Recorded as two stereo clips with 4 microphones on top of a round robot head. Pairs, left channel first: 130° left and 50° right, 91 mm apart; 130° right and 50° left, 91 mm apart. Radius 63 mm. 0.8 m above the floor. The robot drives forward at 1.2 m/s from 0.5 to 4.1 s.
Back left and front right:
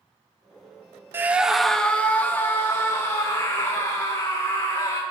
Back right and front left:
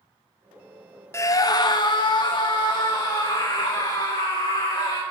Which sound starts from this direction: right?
A scream, at 1.1 s.